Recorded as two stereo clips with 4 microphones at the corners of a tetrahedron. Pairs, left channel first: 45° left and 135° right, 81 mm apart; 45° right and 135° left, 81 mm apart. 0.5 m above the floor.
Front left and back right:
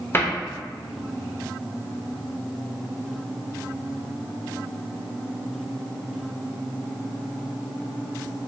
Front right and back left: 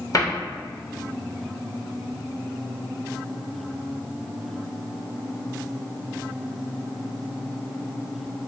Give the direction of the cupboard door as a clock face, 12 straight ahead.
12 o'clock.